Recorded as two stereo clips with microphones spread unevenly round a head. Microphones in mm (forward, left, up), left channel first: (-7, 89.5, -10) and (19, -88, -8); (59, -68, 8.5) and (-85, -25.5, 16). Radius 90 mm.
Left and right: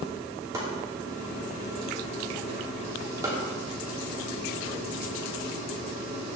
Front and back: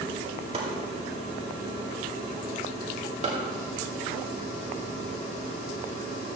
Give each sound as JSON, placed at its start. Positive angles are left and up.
{"t": 0.5, "sound": "chopping", "azimuth_deg": -155, "distance_m": 2.5}